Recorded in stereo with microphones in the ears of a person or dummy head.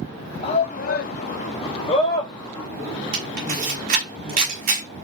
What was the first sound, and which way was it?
A shout, 30° left (ahead or behind).